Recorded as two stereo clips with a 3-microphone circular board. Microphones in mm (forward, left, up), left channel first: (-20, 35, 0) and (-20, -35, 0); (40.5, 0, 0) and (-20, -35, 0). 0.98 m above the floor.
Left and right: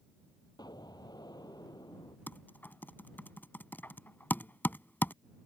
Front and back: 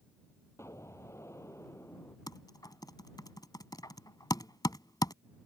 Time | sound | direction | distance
0.6 | an explosion | 80° left | ?
2.3 | typing on a keyboard | 30° left | ?